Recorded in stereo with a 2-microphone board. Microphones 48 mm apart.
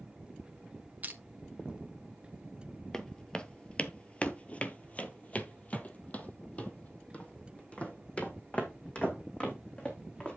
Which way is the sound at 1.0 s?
35° right (ahead or behind).